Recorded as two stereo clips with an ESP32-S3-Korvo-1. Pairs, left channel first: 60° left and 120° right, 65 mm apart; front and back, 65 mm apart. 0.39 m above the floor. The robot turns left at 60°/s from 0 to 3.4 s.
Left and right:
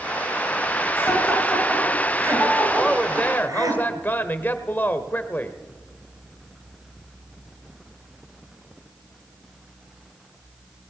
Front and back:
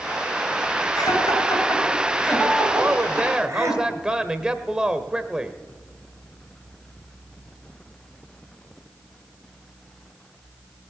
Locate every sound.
1.0 s laughter: 5° left, 7 m; by 3.8 s 140° right, 7 m
2.8 s a woman speaking: 145° left, 1.3 m; by 5.6 s 105° left, 1.3 m